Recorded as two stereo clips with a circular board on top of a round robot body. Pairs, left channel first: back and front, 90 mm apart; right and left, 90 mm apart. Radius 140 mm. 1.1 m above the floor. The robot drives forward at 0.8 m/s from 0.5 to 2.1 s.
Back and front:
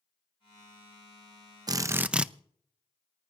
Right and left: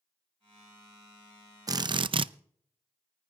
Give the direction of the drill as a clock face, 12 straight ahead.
11 o'clock.